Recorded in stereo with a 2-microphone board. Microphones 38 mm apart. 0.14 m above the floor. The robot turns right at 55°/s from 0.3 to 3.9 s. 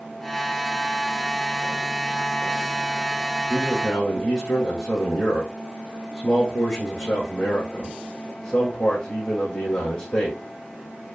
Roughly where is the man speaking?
Centre.